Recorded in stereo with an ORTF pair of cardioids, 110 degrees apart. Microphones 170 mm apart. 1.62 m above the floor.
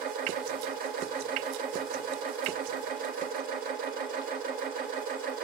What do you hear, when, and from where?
0.0 s a machine running: 60° right, 2 m